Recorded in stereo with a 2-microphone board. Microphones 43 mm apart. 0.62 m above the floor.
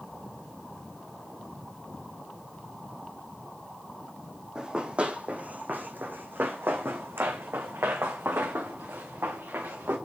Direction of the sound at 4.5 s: 20° right (ahead or behind).